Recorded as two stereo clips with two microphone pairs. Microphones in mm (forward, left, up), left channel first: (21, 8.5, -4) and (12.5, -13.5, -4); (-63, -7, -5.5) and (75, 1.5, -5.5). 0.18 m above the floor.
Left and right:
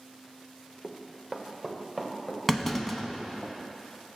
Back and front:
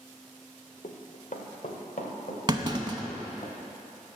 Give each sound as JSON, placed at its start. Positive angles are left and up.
{"t": 0.8, "sound": "running footsteps", "azimuth_deg": 155, "distance_m": 1.1}
{"t": 2.5, "sound": "a clunk", "azimuth_deg": 5, "distance_m": 0.6}